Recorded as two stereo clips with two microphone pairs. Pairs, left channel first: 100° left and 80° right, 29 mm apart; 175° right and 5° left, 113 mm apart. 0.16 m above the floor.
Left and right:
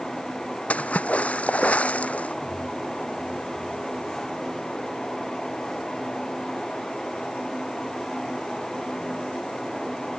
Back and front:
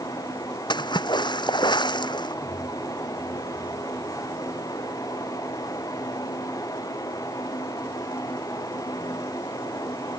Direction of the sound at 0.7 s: 140° left.